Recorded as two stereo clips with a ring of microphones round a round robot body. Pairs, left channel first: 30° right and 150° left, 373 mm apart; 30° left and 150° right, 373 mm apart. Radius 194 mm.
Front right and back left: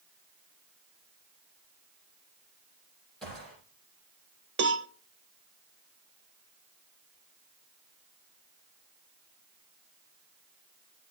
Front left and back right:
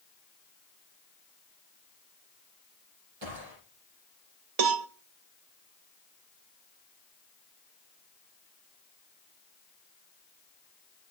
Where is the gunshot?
120° right, 9 m.